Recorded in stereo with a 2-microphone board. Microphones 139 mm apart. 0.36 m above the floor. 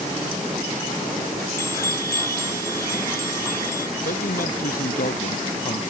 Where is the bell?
20° left (ahead or behind).